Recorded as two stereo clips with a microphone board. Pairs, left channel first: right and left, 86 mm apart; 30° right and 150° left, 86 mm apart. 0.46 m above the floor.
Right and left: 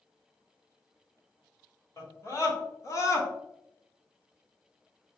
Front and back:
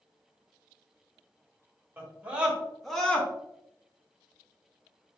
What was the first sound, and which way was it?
A scream, 140° right.